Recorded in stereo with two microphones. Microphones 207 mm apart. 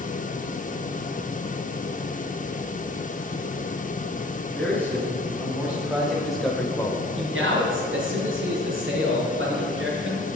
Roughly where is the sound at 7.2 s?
Right.